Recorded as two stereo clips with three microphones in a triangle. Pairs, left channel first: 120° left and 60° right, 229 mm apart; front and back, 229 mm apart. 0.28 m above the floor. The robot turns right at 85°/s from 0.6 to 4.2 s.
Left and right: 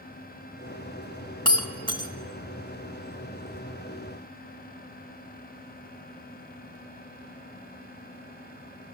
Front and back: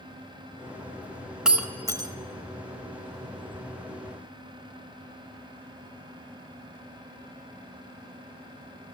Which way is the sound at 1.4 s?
100° left.